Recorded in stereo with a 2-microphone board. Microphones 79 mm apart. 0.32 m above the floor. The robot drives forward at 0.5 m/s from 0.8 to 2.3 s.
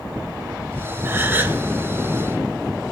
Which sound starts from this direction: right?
A gasp, at 1.1 s.